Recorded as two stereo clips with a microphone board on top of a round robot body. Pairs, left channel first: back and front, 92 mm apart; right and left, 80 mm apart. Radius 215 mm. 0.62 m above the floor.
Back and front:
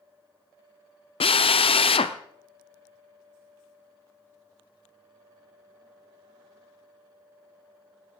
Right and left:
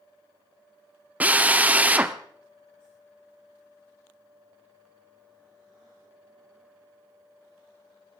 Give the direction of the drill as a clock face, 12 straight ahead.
7 o'clock.